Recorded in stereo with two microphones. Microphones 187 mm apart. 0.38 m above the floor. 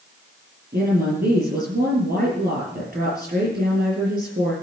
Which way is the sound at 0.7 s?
55° right (ahead or behind).